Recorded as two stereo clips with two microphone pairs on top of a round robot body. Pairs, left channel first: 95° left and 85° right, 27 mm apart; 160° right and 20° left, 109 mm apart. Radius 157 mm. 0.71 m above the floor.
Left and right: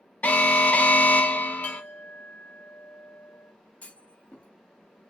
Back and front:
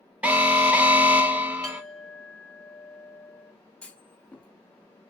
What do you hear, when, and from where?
0.2 s an alarm: 100° left, 0.8 m
1.6 s a clink: 120° left, 0.9 m
3.8 s a clunk: 125° left, 0.7 m